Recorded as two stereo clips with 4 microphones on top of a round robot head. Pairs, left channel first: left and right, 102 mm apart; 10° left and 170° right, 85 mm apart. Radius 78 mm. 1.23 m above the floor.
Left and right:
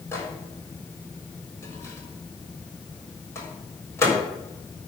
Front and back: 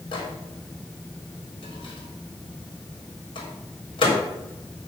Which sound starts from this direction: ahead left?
A microwave, at 0.1 s.